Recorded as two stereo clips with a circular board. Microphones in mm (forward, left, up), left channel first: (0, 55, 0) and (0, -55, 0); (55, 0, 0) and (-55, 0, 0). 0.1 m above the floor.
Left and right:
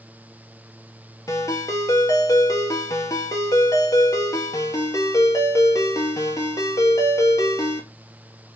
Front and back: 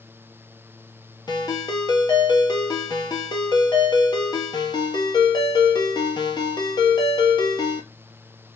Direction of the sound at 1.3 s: 35° left.